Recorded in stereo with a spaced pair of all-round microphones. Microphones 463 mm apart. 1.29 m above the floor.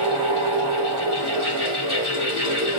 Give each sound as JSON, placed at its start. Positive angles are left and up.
{"t": 0.0, "sound": "a fan", "side_deg": -50, "distance_m": 4.0}